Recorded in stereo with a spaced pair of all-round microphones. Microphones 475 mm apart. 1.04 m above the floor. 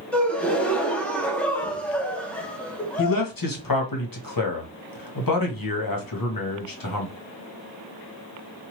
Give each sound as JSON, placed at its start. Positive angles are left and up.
{"t": 0.1, "sound": "a gasp", "side_deg": 5, "distance_m": 0.6}
{"t": 3.0, "sound": "a man speaking", "side_deg": 45, "distance_m": 0.9}